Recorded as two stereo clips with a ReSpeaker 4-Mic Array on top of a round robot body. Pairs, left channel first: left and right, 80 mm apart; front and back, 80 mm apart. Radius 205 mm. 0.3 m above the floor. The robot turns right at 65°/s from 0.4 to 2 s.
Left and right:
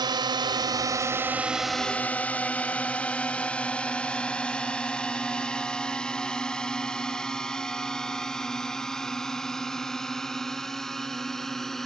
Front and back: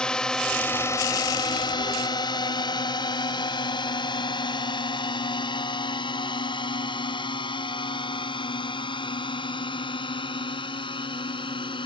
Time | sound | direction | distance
0.0 | a drone | 80° right | ?